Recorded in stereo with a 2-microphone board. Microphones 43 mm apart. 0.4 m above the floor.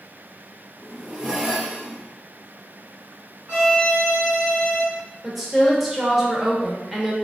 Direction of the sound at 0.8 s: 10° right (ahead or behind).